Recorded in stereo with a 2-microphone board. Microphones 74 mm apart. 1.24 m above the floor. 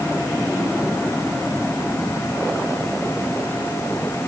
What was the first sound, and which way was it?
Only background noise.